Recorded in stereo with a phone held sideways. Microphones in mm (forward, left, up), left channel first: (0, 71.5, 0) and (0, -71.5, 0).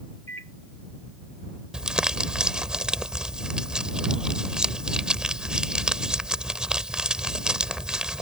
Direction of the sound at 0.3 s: 50° right (ahead or behind).